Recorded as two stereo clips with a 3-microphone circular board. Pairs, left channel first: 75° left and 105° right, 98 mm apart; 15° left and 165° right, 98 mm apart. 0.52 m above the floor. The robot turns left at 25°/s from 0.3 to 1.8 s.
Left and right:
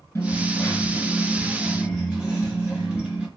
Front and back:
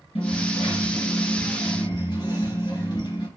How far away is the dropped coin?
About 2 m.